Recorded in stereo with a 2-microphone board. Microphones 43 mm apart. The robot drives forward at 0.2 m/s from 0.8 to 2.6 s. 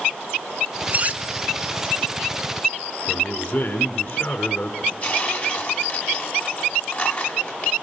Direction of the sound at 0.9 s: 35° right (ahead or behind).